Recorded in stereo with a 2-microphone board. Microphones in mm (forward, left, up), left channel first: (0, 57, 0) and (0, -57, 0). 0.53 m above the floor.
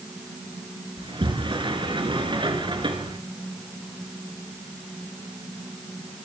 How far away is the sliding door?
About 3 m.